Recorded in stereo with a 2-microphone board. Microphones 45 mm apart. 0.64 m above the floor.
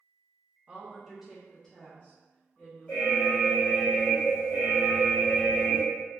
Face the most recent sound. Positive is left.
turn(degrees=30)  # may be behind; listen again after turning